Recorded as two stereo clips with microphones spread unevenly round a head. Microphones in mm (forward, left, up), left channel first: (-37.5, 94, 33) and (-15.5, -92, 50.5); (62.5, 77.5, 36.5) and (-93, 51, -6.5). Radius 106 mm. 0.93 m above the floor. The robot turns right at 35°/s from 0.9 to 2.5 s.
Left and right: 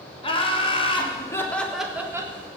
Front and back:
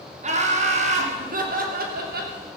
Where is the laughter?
155° left, 3 m; by 2.3 s 155° right, 3 m.